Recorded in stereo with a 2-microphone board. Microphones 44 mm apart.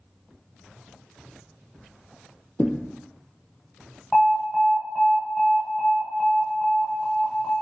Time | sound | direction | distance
2.6 | a thud | 45° left (ahead or behind) | 0.6 m
4.1 | an alarm | 15° left (ahead or behind) | 0.7 m